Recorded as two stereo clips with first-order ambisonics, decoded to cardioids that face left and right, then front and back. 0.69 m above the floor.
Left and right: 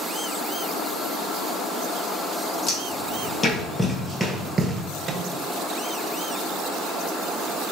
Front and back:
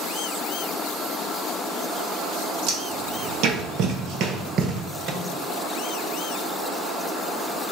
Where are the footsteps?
150° left, 1.5 m; by 4.8 s 145° right, 0.8 m.